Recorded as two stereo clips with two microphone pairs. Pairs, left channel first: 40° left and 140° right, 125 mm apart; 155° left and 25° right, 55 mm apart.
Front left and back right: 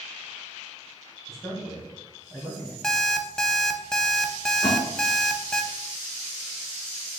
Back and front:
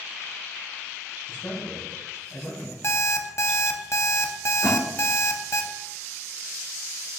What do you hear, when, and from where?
1.3 s a man speaking: 135° left, 2 m; by 2.7 s 110° left, 1.9 m
2.8 s an alarm clock: 125° left, 0.6 m
4.6 s a splash: 25° right, 2 m